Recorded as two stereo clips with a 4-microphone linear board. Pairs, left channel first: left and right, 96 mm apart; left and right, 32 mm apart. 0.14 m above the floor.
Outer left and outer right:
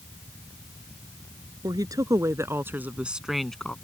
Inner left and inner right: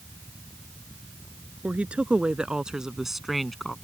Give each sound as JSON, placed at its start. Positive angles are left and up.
{"t": 1.6, "sound": "a woman speaking", "side_deg": -50}